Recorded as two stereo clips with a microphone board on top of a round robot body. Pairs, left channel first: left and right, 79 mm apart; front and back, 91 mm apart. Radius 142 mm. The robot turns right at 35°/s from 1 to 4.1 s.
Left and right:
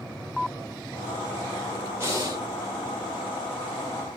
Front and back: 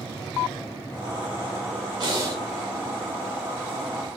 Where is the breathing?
140° right, 2 m; by 2.4 s 125° right, 2 m.